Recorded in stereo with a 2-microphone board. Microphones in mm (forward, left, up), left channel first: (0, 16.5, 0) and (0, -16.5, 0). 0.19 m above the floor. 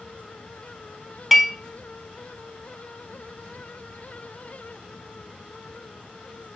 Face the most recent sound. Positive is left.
turn(degrees=0)  # may be behind; listen again after turning